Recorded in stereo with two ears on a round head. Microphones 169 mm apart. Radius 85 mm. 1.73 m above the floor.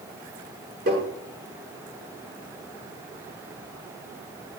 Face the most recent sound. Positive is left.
turn(degrees=-50)  # may be behind; listen again after turning